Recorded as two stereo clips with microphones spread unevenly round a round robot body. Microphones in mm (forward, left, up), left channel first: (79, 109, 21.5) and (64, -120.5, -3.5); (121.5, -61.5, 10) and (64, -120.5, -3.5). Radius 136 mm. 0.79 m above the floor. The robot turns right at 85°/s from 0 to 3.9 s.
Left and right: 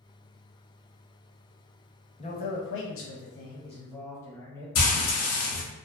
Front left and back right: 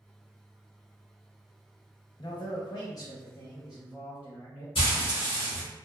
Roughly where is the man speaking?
Ahead left.